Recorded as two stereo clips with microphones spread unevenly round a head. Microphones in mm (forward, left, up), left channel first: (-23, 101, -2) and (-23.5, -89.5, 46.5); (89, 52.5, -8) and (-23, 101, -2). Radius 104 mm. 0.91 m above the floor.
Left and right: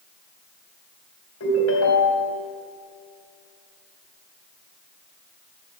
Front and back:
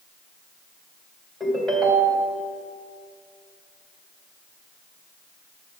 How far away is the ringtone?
About 2.5 m.